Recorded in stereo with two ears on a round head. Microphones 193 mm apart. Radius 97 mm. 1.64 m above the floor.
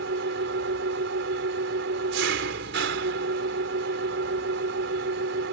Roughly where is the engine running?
Right.